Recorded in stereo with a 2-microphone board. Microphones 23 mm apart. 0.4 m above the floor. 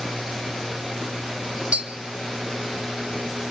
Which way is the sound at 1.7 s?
65° right (ahead or behind).